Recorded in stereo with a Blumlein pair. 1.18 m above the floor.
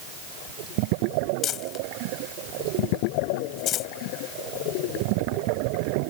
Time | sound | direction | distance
1.4 | crumpling | 30° left | ?